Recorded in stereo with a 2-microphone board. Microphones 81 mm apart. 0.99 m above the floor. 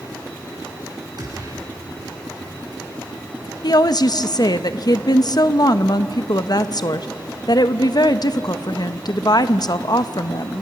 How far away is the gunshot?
About 6 m.